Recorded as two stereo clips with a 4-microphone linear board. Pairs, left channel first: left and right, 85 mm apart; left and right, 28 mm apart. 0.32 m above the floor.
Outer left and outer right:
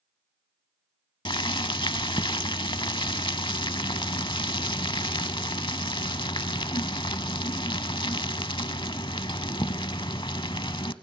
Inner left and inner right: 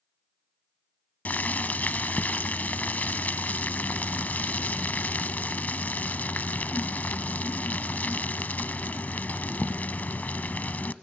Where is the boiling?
80° left, 0.6 m.